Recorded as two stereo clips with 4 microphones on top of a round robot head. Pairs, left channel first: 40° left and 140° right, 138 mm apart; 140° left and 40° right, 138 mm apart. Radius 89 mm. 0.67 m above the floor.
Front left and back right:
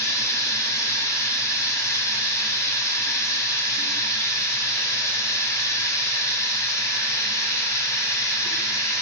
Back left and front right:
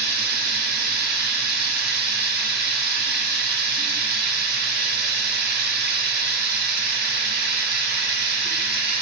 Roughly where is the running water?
Ahead right.